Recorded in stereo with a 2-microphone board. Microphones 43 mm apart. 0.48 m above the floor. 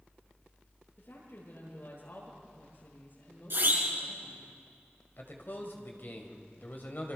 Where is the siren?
60° right (ahead or behind), 5 m.